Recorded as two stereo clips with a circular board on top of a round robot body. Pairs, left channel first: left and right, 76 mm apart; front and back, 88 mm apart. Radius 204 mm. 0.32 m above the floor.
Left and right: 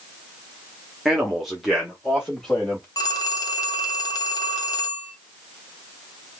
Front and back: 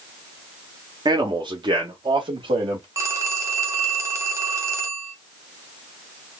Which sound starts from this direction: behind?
A man speaking, at 1.1 s.